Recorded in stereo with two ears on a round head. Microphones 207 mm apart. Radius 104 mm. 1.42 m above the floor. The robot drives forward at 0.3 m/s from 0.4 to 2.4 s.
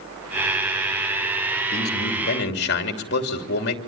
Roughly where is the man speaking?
Left.